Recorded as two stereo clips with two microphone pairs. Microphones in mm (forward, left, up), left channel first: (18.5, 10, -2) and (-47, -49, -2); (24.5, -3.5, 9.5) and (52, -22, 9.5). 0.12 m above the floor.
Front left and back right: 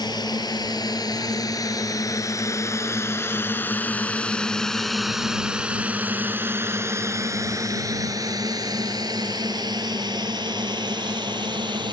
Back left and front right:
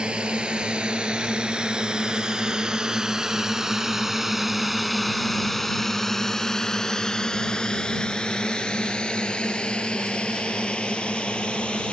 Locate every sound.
0.0 s a drone: 20° left; by 11.9 s 160° right